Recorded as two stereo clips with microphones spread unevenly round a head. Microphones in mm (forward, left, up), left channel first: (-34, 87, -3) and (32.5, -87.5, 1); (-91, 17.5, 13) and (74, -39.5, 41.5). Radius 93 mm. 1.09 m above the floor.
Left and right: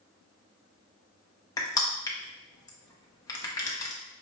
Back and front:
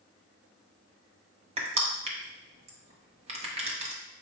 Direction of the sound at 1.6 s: 40° left.